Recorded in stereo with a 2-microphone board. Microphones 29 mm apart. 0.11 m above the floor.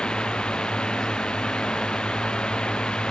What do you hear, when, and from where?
0.0 s a drone: 30° left (ahead or behind)